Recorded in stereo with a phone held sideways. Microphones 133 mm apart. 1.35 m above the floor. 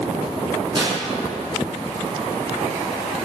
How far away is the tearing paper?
About 1.6 m.